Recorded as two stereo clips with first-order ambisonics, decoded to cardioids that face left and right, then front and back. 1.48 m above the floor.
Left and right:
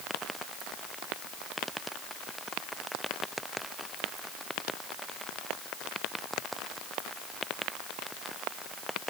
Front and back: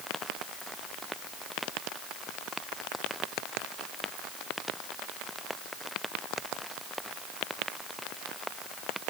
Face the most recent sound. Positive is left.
No sound to turn to.